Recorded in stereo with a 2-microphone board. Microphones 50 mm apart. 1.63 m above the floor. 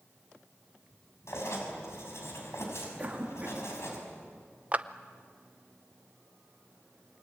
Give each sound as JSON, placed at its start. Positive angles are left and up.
{"t": 1.3, "sound": "writing", "side_deg": 65, "distance_m": 5.5}
{"t": 3.0, "sound": "a cough", "side_deg": -30, "distance_m": 3.5}
{"t": 4.7, "sound": "a clap", "side_deg": -30, "distance_m": 0.7}